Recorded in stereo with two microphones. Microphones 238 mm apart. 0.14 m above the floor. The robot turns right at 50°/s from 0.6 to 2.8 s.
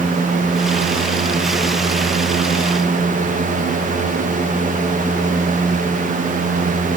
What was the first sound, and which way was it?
Only background noise.